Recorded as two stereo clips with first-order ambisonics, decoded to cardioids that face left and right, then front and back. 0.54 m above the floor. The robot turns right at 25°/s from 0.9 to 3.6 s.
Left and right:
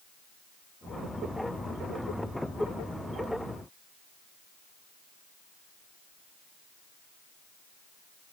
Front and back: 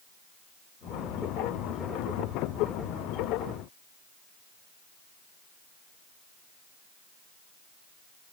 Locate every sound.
Only background noise.